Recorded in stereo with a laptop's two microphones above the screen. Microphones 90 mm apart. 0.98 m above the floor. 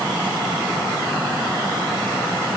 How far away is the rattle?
No rattle in this recording.